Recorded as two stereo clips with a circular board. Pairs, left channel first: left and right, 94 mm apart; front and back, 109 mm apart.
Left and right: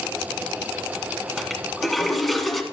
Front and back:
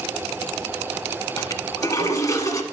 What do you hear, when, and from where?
1.4 s a toilet flushing: straight ahead, 1.3 m